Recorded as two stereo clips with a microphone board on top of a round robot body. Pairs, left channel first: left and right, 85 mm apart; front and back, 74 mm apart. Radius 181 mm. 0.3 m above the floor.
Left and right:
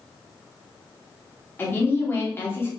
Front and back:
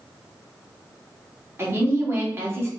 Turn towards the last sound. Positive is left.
turn(degrees=140)